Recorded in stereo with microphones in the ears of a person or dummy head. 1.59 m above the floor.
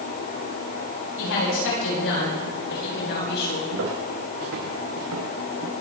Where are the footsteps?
70° right (ahead or behind), 7 m.